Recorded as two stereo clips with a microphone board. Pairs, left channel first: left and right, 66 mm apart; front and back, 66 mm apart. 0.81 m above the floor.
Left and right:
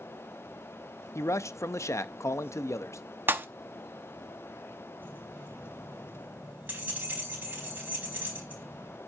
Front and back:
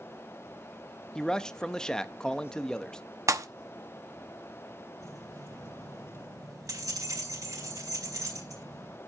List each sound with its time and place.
1.1 s a man speaking: 75° left, 0.6 m
3.3 s a pop: 145° right, 0.8 m
5.0 s keys jangling: 150° right, 4.5 m